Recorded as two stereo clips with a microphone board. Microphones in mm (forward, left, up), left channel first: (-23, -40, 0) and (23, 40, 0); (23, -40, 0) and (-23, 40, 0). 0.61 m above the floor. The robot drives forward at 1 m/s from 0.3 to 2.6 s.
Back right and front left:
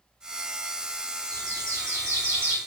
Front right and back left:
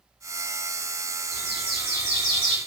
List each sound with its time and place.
1.3 s a bird: 105° left, 3.5 m; by 2.6 s 125° left, 4 m